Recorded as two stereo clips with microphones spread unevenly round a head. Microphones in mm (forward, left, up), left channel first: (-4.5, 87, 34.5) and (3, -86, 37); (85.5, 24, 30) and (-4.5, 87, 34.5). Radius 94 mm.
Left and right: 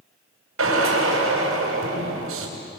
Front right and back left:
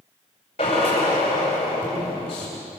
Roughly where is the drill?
Right.